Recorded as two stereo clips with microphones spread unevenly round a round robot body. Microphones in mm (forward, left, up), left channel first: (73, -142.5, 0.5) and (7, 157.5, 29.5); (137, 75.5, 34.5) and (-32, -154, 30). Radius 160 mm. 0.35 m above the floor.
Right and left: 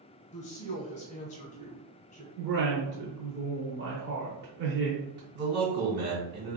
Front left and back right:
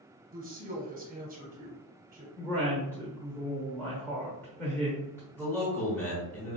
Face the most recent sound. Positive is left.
turn(degrees=140)